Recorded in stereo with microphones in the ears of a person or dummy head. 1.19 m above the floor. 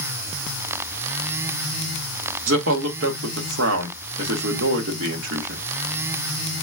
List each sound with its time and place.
2.5 s a man speaking: 75° right (ahead or behind), 1.3 m